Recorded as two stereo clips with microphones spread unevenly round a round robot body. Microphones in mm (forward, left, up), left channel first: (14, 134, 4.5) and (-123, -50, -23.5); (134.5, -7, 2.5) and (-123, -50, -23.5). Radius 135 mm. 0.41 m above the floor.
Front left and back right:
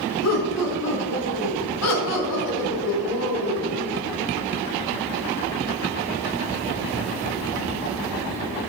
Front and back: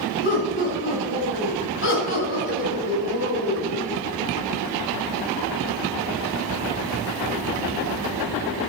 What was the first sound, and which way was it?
Laughter, 60° left.